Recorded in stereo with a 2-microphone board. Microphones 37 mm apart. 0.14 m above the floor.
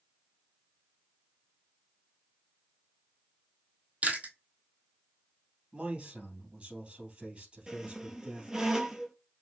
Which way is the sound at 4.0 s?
35° right (ahead or behind).